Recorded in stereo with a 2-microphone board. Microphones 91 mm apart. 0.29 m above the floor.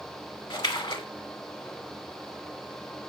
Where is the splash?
65° left (ahead or behind), 0.6 m.